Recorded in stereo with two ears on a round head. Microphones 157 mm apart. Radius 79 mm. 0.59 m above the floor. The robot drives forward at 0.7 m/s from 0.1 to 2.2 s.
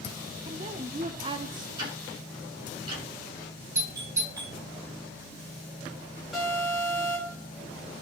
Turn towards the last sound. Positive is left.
turn(degrees=0)  # may be behind; listen again after turning